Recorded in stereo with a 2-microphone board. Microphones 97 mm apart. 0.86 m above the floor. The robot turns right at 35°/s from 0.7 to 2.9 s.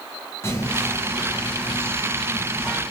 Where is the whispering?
25° left (ahead or behind), 0.8 m; by 2.8 s centre (ahead or behind), 0.8 m.